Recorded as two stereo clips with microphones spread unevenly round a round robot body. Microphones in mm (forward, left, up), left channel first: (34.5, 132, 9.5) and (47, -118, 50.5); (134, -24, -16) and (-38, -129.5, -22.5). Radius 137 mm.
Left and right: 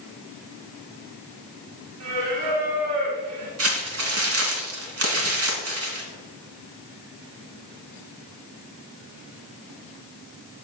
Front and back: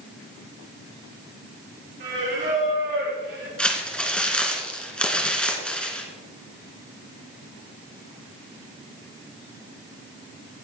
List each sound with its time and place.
2.0 s singing: 120° right, 4 m
3.6 s crumpling: 55° right, 2.5 m